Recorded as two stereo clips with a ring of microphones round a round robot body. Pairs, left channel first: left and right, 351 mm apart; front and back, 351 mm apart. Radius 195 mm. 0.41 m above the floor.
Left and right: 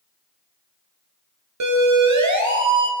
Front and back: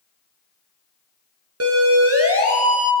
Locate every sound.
1.6 s a siren: 130° right, 6 m; by 2.9 s 125° right, 4.5 m